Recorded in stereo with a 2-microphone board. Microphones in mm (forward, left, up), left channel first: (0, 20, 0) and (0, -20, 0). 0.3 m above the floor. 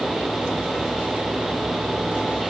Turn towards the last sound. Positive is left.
No sound to turn to.